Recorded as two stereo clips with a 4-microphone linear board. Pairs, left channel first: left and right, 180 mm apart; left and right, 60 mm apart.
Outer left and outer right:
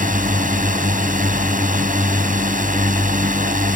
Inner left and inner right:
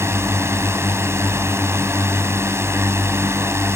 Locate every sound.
0.0 s a drone: 50° right (ahead or behind)